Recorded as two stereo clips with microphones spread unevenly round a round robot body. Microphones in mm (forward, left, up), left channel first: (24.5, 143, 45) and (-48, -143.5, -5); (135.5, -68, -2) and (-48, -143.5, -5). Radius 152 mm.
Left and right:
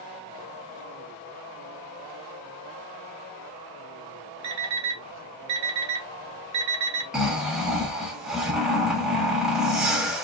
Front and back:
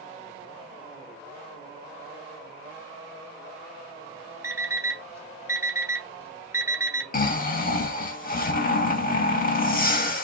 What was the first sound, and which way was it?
An alarm clock, 85° right.